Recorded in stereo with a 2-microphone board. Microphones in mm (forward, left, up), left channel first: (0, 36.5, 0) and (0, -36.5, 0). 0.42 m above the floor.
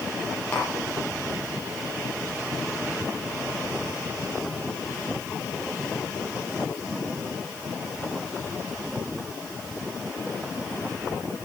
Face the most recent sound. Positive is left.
turn(degrees=25)  # may be behind; listen again after turning